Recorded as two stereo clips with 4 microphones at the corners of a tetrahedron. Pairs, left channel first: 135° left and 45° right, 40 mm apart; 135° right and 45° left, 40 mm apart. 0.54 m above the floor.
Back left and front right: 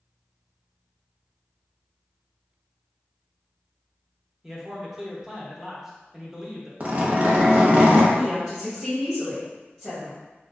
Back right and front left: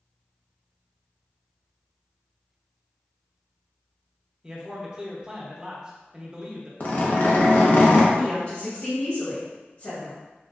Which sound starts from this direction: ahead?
A man speaking, at 4.4 s.